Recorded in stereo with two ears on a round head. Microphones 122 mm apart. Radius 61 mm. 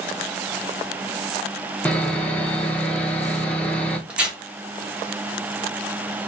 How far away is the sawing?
About 0.9 m.